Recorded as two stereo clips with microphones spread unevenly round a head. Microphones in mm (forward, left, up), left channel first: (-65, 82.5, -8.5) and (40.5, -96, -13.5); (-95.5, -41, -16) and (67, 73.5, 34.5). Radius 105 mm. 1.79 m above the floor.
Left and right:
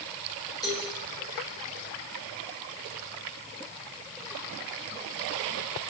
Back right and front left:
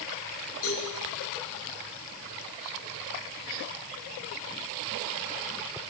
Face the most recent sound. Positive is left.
turn(degrees=-165)